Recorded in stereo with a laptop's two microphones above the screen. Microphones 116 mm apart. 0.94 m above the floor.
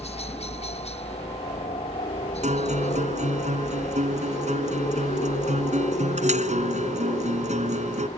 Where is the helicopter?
60° left (ahead or behind); by 8.2 s 65° left (ahead or behind).